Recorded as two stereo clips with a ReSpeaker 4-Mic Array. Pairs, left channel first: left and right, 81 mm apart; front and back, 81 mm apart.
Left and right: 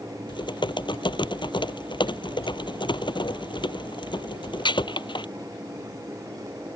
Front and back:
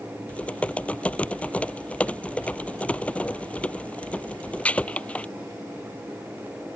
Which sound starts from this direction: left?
Typing on a keyboard, at 0.3 s.